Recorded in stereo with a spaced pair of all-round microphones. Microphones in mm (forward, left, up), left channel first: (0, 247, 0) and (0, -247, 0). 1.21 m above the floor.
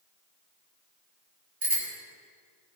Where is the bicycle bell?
75° right (ahead or behind), 4.5 m.